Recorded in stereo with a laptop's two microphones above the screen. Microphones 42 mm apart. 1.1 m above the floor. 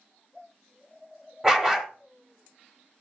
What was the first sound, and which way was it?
A dog barking, 10° right (ahead or behind).